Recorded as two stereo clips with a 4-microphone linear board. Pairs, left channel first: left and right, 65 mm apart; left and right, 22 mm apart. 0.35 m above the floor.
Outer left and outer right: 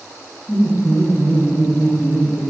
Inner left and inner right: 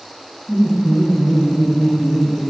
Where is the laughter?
35° left (ahead or behind), 1.9 m; by 2.5 s 30° left (ahead or behind), 1.2 m.